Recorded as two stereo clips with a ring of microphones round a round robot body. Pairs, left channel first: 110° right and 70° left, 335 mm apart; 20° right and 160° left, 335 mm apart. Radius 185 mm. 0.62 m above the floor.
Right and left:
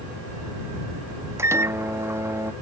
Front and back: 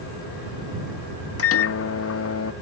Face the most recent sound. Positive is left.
turn(degrees=-10)